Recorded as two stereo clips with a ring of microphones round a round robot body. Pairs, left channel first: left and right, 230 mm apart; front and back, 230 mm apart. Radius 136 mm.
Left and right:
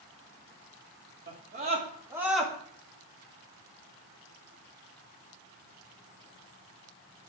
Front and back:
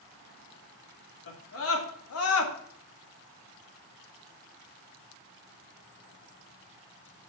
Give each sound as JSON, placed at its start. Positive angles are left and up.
{"t": 1.3, "sound": "a scream", "azimuth_deg": -35, "distance_m": 2.5}